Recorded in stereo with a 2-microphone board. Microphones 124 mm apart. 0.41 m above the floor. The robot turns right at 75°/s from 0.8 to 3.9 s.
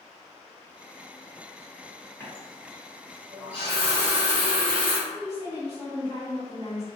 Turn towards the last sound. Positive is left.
turn(degrees=-60)  # may be behind; listen again after turning